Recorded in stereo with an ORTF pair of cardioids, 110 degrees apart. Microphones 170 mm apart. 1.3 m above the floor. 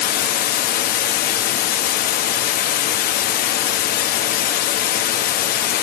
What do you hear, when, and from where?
0.0 s running water: 65° left, 1.4 m